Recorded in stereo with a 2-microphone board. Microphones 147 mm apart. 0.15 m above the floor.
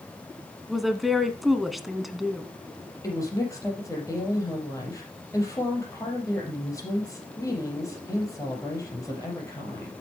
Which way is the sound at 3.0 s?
20° left (ahead or behind).